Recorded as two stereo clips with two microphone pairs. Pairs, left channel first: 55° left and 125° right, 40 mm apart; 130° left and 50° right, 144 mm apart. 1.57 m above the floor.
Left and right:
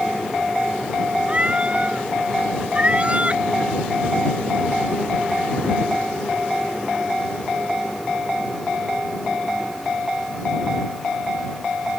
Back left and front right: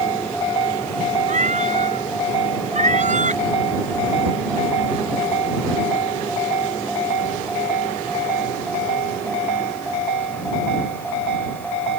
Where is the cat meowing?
70° right.